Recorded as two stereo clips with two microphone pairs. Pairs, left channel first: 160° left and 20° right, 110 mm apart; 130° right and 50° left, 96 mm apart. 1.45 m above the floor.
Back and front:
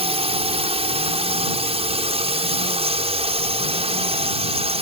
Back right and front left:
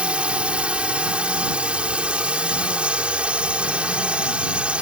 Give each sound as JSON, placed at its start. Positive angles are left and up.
{"t": 0.0, "sound": "a drone", "azimuth_deg": -30}